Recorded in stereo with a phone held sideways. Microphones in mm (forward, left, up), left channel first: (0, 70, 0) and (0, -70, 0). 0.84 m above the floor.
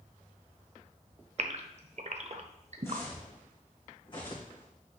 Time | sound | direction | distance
1.4 | a gasp | 50° right (ahead or behind) | 0.7 m
2.8 | footsteps | 20° left (ahead or behind) | 2.5 m